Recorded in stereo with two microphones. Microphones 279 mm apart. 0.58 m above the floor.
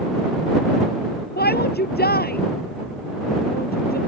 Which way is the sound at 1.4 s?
35° left (ahead or behind).